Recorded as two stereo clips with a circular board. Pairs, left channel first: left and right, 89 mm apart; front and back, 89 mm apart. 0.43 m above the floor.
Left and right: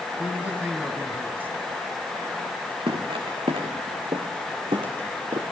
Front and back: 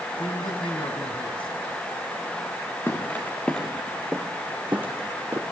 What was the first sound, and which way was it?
A man speaking, 20° right.